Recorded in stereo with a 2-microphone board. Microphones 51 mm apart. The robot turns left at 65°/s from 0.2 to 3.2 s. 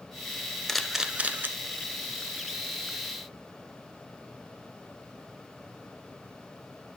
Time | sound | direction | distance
0.7 | a camera shutter | 5° left (ahead or behind) | 0.6 m